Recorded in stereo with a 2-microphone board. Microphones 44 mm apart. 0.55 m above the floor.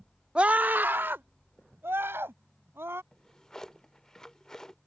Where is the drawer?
10° left (ahead or behind).